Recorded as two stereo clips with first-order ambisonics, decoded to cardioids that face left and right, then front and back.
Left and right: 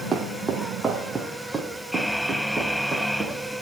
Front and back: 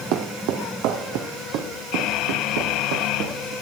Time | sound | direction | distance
0.1 | footsteps | 160° right | 1.7 m